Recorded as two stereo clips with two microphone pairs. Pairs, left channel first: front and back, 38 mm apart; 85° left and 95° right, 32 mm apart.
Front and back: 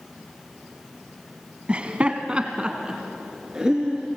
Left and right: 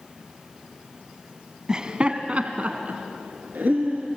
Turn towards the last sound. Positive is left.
turn(degrees=-105)